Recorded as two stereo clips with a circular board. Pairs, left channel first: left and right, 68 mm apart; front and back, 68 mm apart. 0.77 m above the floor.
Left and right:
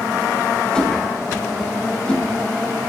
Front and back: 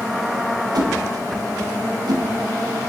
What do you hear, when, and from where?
0.8 s a whoosh: 165° left, 2.5 m